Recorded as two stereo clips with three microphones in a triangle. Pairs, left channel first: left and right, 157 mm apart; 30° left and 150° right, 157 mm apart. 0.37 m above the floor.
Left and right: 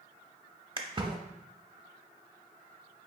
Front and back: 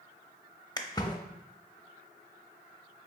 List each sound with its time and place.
0.8 s a splash: 35° right, 0.5 m